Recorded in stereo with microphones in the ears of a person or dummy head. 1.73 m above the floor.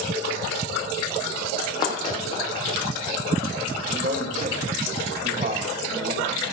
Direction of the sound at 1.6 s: 25° left (ahead or behind).